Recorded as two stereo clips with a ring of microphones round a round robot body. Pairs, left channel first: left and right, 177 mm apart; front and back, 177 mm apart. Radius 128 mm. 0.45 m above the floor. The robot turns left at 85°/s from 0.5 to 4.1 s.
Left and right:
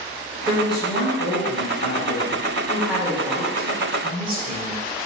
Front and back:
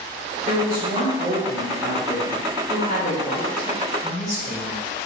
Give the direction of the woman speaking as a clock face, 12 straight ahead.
5 o'clock.